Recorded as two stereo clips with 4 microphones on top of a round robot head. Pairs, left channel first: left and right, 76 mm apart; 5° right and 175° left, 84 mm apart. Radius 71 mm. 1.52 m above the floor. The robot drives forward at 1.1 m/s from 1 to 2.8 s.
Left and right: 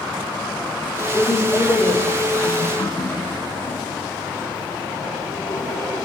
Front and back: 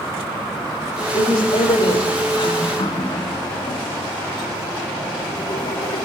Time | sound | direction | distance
1.1 | a woman speaking | 10° left | 7.5 m
2.8 | a running tap | 25° left | 1.9 m